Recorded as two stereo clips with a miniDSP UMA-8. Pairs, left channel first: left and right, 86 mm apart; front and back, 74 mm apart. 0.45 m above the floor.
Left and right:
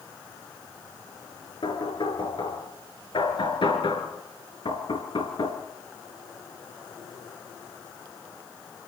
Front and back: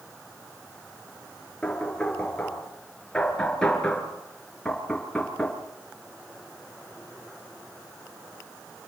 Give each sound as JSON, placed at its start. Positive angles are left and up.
{"t": 1.6, "sound": "knocking", "azimuth_deg": 80, "distance_m": 4.5}